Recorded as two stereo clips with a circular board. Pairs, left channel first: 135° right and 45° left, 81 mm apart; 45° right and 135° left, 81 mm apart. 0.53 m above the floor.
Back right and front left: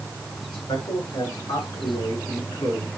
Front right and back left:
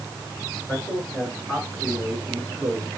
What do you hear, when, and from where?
0.5 s a man speaking: 140° right, 6 m; by 2.9 s 150° right, 6 m